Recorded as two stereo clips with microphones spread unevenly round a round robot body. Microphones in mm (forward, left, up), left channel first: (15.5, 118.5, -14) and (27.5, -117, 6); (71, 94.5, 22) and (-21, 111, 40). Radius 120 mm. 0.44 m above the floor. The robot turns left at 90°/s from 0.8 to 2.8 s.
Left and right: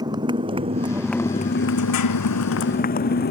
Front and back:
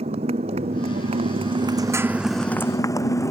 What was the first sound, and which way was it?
A motorcycle, 160° right.